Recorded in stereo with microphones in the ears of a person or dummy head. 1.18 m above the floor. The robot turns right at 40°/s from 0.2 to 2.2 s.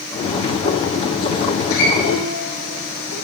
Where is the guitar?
70° left (ahead or behind), 10 m; by 3.1 s 80° left, 10 m.